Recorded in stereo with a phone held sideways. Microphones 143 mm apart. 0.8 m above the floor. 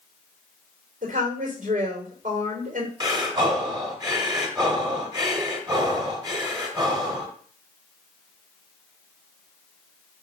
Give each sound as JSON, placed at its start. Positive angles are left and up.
{"t": 1.0, "sound": "a woman speaking", "side_deg": -65, "distance_m": 3.0}
{"t": 3.0, "sound": "breathing", "side_deg": -30, "distance_m": 1.6}